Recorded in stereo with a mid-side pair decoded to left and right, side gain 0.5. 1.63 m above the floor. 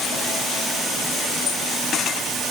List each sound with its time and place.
Only background noise.